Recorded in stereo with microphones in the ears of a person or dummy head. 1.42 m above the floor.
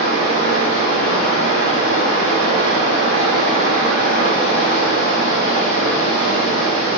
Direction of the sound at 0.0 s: 70° right (ahead or behind).